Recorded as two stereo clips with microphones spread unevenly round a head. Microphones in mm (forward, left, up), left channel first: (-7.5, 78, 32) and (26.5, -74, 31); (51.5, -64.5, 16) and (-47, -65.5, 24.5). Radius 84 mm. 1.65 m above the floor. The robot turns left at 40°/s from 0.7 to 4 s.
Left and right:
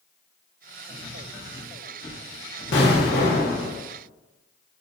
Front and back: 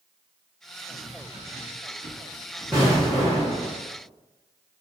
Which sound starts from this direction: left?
An explosion, at 2.7 s.